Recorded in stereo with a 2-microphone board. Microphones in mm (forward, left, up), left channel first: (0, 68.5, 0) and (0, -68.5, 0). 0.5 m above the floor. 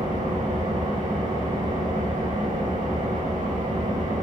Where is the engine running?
65° right (ahead or behind), 6 m.